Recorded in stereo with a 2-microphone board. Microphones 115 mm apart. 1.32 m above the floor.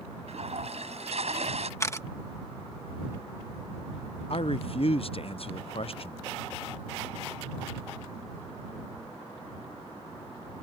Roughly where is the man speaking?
Left.